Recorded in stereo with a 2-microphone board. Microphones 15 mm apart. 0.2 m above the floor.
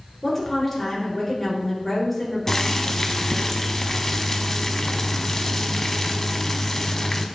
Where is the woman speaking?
10° left (ahead or behind), 3.5 m.